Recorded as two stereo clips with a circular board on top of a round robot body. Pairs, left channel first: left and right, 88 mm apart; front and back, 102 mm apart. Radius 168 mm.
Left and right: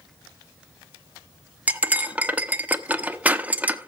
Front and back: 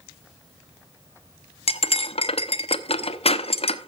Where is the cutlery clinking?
15° right, 0.9 m.